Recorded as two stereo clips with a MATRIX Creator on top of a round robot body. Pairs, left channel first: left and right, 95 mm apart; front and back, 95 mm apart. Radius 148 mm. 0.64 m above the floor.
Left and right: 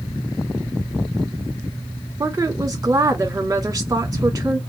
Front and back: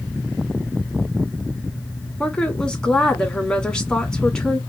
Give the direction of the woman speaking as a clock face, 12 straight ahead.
3 o'clock.